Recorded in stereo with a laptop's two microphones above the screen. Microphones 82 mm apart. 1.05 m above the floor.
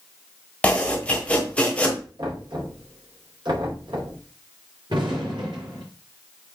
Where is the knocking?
70° right (ahead or behind), 3.5 m.